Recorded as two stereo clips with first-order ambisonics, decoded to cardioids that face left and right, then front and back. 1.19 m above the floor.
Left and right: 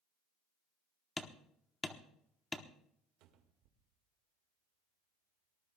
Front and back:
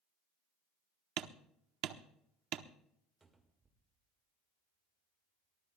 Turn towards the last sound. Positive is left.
turn(degrees=-105)